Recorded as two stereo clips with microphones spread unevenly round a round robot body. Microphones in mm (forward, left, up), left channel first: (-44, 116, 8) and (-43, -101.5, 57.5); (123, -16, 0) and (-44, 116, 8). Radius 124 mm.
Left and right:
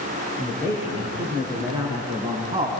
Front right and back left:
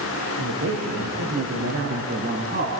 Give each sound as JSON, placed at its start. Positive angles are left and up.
{"t": 0.4, "sound": "a man speaking", "azimuth_deg": -175, "distance_m": 6.5}